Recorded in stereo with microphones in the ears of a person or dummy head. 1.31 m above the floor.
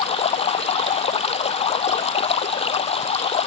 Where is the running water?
30° left (ahead or behind).